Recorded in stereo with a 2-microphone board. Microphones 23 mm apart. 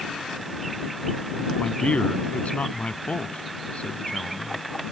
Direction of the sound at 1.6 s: 65° left (ahead or behind).